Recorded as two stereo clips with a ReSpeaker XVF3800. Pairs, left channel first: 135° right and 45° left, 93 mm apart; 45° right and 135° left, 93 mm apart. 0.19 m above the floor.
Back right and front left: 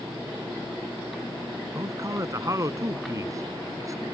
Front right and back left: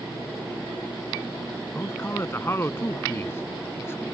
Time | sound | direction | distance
1.8 | a man speaking | 5° left | ?